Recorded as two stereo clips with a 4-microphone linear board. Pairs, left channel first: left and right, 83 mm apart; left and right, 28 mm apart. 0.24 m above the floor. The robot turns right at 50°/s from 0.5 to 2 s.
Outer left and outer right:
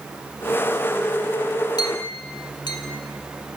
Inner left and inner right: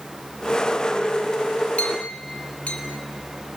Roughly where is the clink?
Left.